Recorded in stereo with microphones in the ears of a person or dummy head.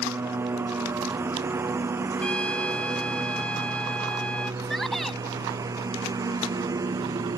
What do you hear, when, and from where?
0.0 s a lawn mower: 15° right (ahead or behind); by 7.4 s 20° right (ahead or behind)
2.2 s a trumpet: 5° left (ahead or behind)
4.6 s a shout: 5° left (ahead or behind)